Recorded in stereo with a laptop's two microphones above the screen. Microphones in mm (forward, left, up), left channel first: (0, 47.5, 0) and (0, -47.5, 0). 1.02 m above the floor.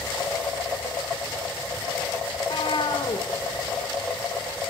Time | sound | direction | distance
2.4 | a cat meowing | 60° left (ahead or behind) | 2.5 m